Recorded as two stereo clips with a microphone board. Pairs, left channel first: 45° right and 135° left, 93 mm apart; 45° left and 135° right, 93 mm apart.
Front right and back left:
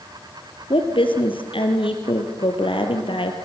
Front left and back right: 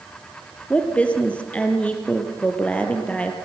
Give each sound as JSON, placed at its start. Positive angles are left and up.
{"t": 0.7, "sound": "a woman speaking", "azimuth_deg": -30, "distance_m": 3.5}